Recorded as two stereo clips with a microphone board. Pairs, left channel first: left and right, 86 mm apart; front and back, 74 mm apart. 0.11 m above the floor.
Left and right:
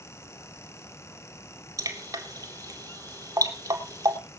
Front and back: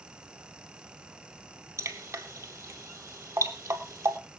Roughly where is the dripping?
Behind right.